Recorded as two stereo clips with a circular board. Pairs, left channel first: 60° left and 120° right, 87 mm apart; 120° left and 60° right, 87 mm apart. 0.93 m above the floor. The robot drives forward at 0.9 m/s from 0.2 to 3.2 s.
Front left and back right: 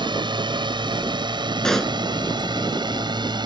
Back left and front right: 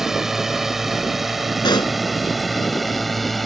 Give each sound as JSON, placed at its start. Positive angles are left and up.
{"t": 0.0, "sound": "a drone", "azimuth_deg": -145}
{"t": 1.6, "sound": "a pop", "azimuth_deg": 145}